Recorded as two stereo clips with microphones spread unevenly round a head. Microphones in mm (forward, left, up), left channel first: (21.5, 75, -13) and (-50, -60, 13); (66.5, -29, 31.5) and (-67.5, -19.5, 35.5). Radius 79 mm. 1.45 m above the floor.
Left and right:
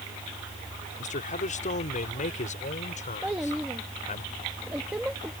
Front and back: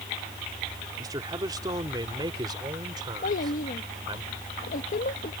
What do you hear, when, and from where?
1.0 s a man speaking: 105° left; by 4.2 s 110° left
3.2 s a child speaking: 35° right